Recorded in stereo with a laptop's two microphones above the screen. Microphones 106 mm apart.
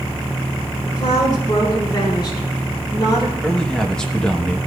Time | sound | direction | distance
0.8 | a woman speaking | 40° left (ahead or behind) | 5 m
3.4 | a man speaking | 5° left (ahead or behind) | 1.0 m